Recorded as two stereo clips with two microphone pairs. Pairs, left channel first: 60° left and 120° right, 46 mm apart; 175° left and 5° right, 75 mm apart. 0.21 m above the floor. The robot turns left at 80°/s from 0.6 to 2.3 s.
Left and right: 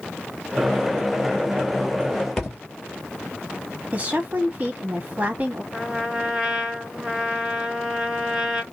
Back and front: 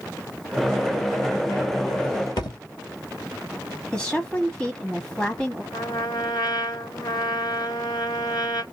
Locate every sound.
2.4 s a thud: 145° left, 2.5 m
3.9 s a woman speaking: 115° right, 1.2 m
5.7 s a trumpet: 165° left, 1.6 m